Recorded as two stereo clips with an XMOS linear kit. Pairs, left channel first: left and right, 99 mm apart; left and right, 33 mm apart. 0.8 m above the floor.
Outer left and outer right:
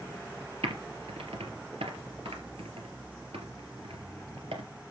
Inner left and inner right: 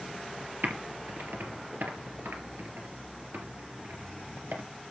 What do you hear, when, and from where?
0.6 s typing on a keyboard: 75° right (ahead or behind), 2.5 m